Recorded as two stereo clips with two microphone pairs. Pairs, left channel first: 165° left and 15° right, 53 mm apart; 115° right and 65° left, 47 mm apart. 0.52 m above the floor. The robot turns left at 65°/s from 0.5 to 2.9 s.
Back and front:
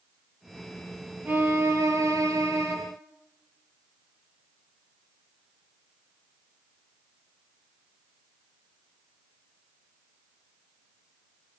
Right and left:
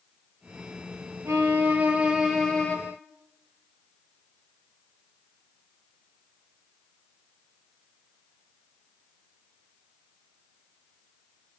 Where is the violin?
45° left, 6.5 m; by 2.8 s 55° right, 6.5 m.